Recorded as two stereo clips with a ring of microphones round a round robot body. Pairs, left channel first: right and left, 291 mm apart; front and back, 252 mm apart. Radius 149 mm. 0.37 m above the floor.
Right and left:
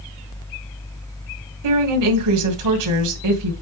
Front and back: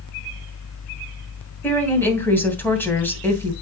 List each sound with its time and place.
1.6 s a woman speaking: 80° left, 2.5 m